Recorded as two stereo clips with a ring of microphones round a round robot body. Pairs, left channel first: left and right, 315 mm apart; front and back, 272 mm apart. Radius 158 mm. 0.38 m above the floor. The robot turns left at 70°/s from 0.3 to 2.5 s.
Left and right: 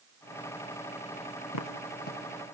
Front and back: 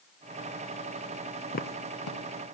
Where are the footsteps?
65° left, 1.6 m; by 2.2 s 20° left, 1.6 m.